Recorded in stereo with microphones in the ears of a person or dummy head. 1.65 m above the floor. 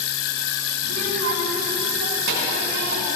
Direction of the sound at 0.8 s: 75° right (ahead or behind).